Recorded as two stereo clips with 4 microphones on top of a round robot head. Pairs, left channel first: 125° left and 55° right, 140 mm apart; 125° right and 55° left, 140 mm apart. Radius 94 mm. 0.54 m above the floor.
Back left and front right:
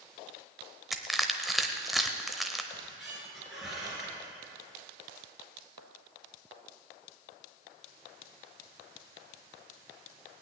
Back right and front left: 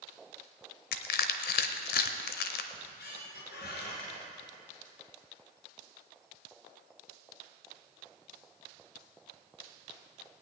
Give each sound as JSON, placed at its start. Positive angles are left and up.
{"t": 0.9, "sound": "crushing", "azimuth_deg": -140, "distance_m": 0.8}
{"t": 2.7, "sound": "a squeak", "azimuth_deg": -140, "distance_m": 3.5}